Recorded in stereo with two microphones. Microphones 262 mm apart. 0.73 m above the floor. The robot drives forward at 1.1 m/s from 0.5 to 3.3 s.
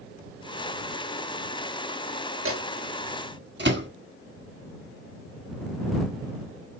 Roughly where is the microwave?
Right.